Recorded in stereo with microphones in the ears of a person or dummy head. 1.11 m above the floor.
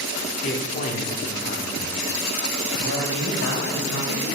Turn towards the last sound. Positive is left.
turn(degrees=75)  # may be behind; listen again after turning